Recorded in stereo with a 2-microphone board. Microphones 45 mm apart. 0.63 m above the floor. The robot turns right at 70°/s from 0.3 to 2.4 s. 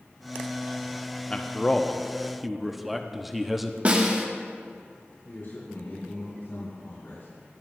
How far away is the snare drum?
About 1.1 m.